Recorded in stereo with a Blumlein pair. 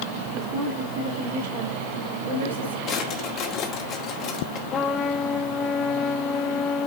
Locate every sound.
0.3 s a woman speaking: 35° right, 3 m; by 2.8 s 65° right, 3 m
2.9 s a drawer: 35° left, 1.8 m
4.7 s a trumpet: 25° left, 0.7 m